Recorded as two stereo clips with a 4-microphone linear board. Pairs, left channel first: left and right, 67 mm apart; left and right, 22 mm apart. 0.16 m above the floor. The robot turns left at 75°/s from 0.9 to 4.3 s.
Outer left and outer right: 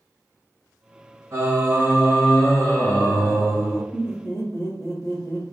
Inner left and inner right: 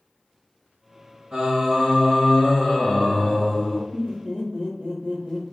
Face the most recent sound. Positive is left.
turn(degrees=40)  # may be behind; listen again after turning